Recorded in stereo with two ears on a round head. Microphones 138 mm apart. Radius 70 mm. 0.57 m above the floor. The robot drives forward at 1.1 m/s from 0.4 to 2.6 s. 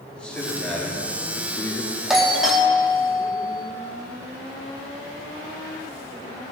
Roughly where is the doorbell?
Centre.